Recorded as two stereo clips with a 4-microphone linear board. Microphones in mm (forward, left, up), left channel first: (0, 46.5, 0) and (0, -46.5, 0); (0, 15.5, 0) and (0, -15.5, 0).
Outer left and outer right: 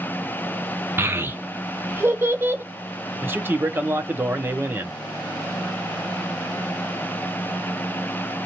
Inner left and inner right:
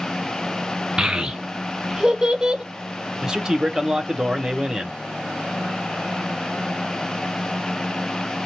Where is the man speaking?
25° right (ahead or behind), 0.7 m.